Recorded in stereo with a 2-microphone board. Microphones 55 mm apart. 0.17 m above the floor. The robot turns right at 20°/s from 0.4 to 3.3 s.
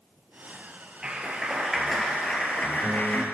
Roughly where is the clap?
Ahead.